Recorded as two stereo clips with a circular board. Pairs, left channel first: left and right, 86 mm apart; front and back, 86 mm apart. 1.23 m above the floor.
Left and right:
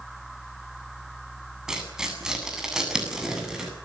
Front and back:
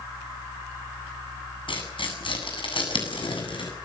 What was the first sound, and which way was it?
Tearing paper, 5° right.